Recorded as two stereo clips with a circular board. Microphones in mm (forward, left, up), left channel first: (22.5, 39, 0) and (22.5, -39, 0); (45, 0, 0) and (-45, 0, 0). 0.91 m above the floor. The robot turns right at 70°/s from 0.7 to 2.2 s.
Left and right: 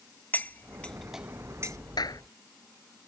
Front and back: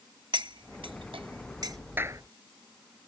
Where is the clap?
115° left; by 2.2 s 130° left.